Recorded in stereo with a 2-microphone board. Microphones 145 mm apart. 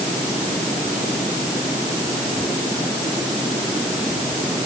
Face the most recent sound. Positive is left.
No sound to turn to.